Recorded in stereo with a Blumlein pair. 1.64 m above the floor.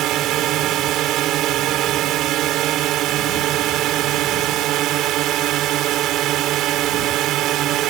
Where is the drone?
35° right.